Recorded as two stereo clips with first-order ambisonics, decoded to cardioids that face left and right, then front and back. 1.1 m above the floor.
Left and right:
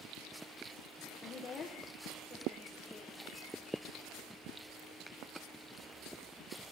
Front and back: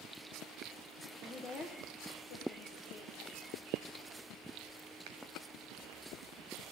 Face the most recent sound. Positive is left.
turn(degrees=-15)